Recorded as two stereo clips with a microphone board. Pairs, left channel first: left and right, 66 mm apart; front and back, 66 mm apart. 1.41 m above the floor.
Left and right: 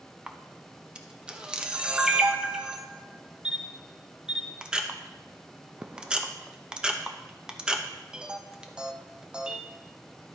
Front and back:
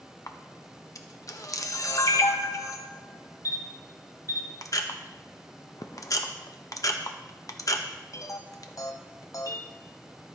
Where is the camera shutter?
15° right, 0.8 m.